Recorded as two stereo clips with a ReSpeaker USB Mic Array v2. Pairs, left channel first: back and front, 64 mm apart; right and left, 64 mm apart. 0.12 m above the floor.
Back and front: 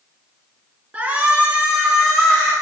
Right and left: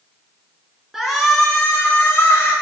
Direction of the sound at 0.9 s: 15° left.